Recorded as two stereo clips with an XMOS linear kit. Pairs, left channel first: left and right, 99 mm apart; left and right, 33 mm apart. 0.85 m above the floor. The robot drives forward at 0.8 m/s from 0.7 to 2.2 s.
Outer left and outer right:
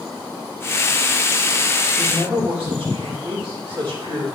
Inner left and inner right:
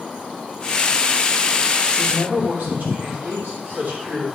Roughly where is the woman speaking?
Right.